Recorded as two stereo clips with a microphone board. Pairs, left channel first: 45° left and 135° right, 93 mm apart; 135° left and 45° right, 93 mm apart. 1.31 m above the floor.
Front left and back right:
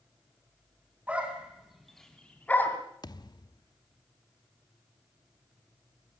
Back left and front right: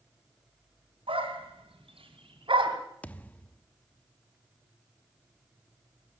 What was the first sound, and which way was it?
A dog barking, 60° right.